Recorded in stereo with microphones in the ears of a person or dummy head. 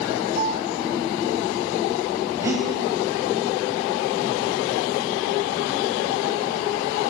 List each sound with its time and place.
0.4 s a piano: 40° right (ahead or behind), 1.4 m
2.4 s breathing: 15° right (ahead or behind), 3 m